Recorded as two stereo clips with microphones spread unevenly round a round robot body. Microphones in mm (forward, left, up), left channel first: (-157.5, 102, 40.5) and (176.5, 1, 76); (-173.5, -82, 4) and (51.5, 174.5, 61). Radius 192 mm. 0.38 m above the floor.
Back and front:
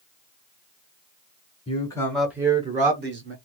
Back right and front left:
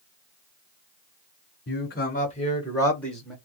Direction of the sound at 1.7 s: 140° right.